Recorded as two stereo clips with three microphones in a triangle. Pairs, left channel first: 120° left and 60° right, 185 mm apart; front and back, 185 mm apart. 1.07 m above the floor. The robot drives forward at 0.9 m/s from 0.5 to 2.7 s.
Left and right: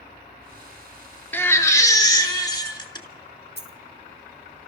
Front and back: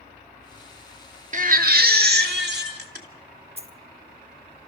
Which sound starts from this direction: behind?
A baby crying, at 1.3 s.